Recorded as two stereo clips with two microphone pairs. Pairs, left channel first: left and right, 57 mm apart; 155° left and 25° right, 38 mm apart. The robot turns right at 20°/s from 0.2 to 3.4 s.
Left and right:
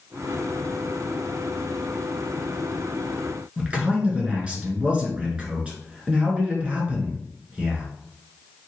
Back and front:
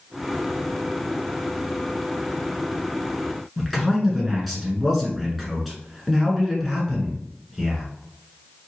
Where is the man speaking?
115° right, 1.5 m.